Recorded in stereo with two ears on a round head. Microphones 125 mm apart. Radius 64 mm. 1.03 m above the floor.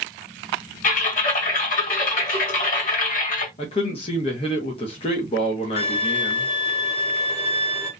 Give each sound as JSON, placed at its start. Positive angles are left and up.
{"t": 0.8, "sound": "typing on a keyboard", "side_deg": 65, "distance_m": 1.5}
{"t": 3.6, "sound": "a man speaking", "side_deg": 45, "distance_m": 0.7}
{"t": 5.8, "sound": "a violin", "side_deg": 45, "distance_m": 1.0}